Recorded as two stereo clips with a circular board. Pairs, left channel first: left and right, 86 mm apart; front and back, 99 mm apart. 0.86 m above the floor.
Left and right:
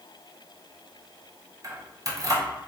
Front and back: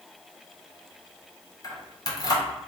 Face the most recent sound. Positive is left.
turn(degrees=-50)